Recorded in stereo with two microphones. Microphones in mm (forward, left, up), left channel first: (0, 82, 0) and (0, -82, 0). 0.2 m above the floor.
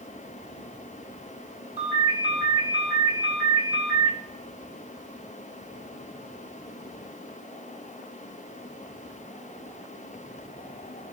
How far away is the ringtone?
About 2.5 m.